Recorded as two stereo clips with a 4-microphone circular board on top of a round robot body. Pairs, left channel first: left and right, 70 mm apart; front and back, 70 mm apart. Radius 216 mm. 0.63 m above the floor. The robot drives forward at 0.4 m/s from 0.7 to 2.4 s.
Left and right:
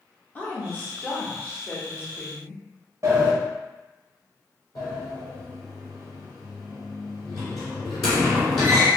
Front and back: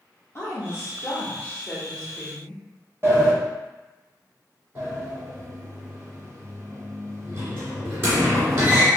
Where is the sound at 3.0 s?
130° right, 1.2 m.